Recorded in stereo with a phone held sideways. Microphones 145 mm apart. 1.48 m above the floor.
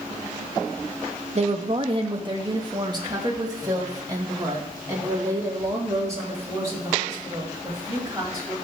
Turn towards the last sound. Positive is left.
turn(degrees=-20)  # may be behind; listen again after turning